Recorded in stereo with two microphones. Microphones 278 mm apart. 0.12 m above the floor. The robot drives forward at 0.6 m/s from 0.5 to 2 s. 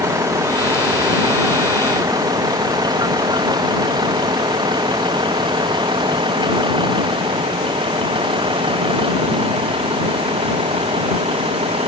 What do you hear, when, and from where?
0.0 s a vehicle: 10° right (ahead or behind); by 11.9 s 20° right (ahead or behind)